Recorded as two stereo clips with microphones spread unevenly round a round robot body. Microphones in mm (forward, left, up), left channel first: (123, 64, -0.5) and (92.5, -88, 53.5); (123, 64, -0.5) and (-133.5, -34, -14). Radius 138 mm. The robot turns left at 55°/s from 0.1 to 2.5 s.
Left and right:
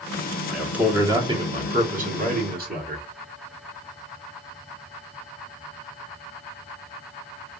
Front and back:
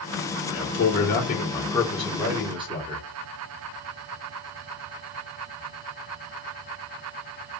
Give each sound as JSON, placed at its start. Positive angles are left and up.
{"t": 0.5, "sound": "a man speaking", "azimuth_deg": 15, "distance_m": 1.5}